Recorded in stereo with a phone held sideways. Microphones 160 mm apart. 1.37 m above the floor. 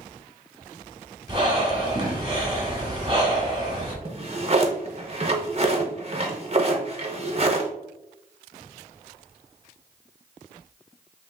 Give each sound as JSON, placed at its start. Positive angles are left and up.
{"t": 1.3, "sound": "breathing", "side_deg": -30, "distance_m": 1.3}
{"t": 4.0, "sound": "a drawer", "side_deg": -40, "distance_m": 0.8}